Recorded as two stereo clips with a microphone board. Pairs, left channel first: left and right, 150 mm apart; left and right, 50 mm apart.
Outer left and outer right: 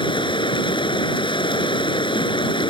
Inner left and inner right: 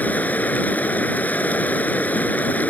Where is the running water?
30° left (ahead or behind).